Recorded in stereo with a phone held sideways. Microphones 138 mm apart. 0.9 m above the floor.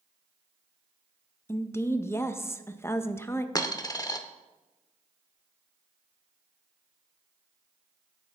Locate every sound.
1.5 s a woman speaking: 20° left (ahead or behind), 0.6 m
3.5 s a dropped coin: 25° left (ahead or behind), 0.7 m